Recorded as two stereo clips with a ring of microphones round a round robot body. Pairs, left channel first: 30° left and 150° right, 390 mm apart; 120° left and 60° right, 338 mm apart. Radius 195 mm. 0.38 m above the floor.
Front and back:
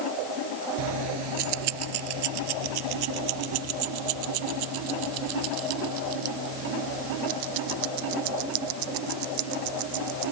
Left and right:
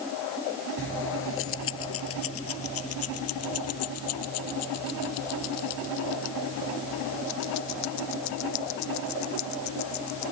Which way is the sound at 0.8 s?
Straight behind.